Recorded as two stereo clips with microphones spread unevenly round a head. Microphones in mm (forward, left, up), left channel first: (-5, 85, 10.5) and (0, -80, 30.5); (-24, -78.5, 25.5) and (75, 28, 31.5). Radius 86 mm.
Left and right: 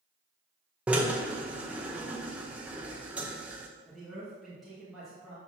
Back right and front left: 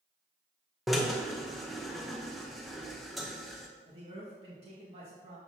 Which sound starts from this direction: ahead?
A man speaking, at 3.9 s.